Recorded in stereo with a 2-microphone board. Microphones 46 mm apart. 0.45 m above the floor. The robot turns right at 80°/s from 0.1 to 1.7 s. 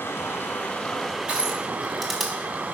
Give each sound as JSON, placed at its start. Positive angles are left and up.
{"t": 0.0, "sound": "running water", "azimuth_deg": 95, "distance_m": 1.0}
{"t": 1.3, "sound": "crushing", "side_deg": -25, "distance_m": 1.6}